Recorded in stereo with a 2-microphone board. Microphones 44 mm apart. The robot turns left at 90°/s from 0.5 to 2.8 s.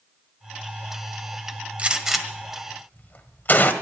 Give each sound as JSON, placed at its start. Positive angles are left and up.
{"t": 1.8, "sound": "a gunshot", "side_deg": -30, "distance_m": 1.5}